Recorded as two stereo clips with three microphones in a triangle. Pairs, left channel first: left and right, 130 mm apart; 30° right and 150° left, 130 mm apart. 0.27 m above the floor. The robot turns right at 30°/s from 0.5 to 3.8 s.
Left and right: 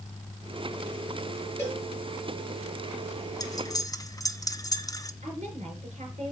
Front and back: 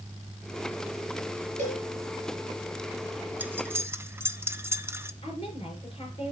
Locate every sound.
1.6 s a cowbell: 165° left, 5.5 m; by 1.9 s 170° left, 5.5 m
3.4 s cutlery clinking: 90° left, 0.5 m; by 5.1 s 100° left, 0.5 m
5.2 s a woman speaking: 75° right, 4 m